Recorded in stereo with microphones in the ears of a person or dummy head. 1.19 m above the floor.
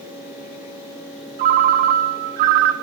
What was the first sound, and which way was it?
A ringtone, 45° right (ahead or behind).